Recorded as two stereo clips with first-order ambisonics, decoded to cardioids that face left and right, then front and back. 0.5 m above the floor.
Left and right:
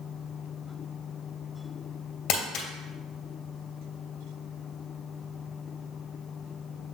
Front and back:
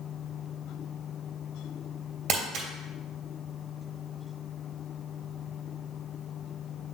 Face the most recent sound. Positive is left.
turn(degrees=135)